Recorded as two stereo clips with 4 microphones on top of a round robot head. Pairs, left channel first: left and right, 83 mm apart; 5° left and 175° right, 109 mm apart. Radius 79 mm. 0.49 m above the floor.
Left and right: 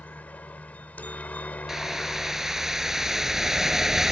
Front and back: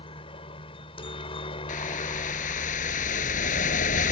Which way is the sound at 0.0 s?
25° left.